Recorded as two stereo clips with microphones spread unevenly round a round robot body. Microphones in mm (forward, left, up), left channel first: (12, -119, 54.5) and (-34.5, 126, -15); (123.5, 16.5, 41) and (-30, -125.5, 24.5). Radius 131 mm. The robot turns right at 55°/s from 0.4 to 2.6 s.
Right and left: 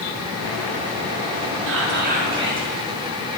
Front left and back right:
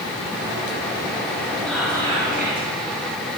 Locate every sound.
1.7 s whispering: 130° left, 4.5 m; by 2.7 s straight behind, 4.5 m